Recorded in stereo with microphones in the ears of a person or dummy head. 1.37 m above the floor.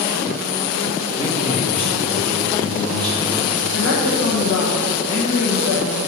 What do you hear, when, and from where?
1.2 s a man speaking: 40° left (ahead or behind), 1.5 m
3.7 s a woman speaking: 90° left, 1.4 m